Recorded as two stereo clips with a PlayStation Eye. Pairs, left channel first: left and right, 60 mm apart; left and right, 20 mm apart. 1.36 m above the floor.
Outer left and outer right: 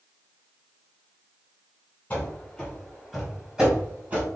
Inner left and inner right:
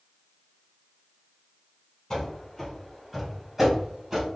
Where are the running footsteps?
25° left (ahead or behind), 1.5 m; by 4.2 s 30° right (ahead or behind), 1.5 m.